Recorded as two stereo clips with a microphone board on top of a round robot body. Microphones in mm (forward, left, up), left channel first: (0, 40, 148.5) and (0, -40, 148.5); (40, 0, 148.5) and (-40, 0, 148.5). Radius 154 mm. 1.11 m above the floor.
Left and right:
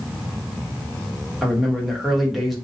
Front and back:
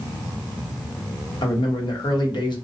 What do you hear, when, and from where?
1.4 s a man speaking: straight ahead, 1.1 m